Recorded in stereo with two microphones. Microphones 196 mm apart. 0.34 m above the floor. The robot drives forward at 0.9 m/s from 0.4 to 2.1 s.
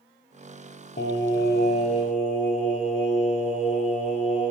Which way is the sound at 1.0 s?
60° left (ahead or behind).